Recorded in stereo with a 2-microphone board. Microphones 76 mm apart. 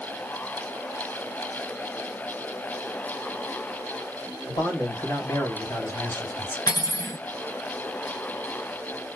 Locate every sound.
4.5 s a man speaking: 55° left (ahead or behind), 2 m; by 6.6 s 30° left (ahead or behind), 1.6 m
6.7 s cutlery clinking: 70° left (ahead or behind), 1.5 m